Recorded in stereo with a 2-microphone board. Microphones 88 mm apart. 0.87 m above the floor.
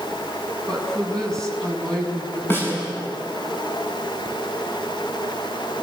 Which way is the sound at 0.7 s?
5° left (ahead or behind).